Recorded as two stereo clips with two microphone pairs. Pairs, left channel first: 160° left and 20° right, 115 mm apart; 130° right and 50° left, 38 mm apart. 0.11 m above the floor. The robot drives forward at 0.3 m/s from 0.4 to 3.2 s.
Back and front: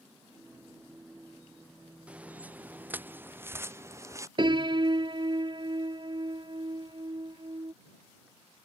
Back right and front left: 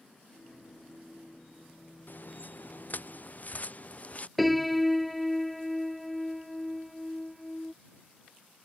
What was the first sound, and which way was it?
Footsteps, 100° right.